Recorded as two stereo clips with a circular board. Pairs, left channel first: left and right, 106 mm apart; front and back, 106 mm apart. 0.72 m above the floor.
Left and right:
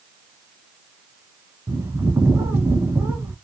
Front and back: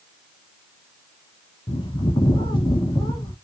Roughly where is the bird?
Ahead right.